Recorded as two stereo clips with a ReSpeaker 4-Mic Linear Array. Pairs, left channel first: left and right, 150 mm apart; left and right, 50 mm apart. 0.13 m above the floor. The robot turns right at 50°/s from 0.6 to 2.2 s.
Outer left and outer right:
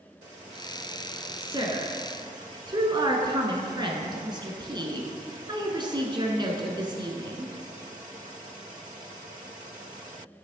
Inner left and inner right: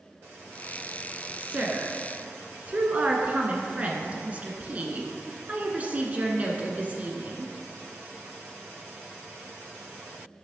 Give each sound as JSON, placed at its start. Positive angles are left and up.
{"t": 1.4, "sound": "a woman speaking", "azimuth_deg": -115, "distance_m": 1.2}